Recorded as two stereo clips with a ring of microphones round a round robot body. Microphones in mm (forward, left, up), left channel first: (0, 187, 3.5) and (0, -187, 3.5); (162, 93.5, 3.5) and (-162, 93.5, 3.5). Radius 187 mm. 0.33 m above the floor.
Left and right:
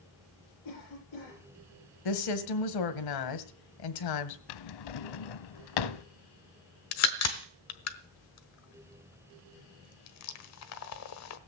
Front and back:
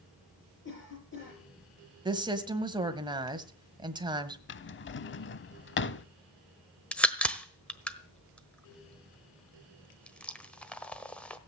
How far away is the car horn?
I don't hear a car horn.